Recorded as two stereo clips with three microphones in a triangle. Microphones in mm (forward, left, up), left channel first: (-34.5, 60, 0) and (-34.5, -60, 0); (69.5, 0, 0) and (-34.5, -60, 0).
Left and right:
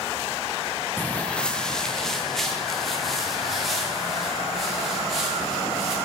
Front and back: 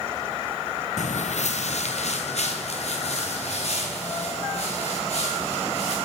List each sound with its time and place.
1.0 s footsteps: 15° left, 0.6 m; by 5.9 s straight ahead, 6.5 m